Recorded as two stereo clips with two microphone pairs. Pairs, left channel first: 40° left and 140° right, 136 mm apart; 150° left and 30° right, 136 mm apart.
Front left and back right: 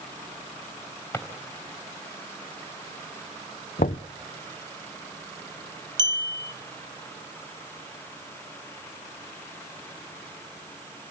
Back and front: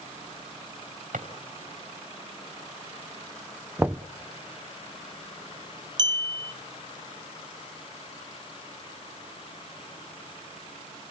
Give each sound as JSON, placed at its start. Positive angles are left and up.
{"t": 1.1, "sound": "a drawer", "azimuth_deg": -30, "distance_m": 3.0}
{"t": 3.8, "sound": "knocking", "azimuth_deg": 45, "distance_m": 0.7}
{"t": 6.0, "sound": "a clink", "azimuth_deg": -85, "distance_m": 0.9}